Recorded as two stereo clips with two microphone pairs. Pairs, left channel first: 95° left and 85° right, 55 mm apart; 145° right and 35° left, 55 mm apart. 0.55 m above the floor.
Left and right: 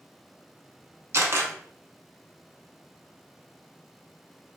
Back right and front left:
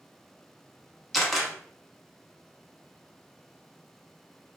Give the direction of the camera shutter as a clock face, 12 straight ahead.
2 o'clock.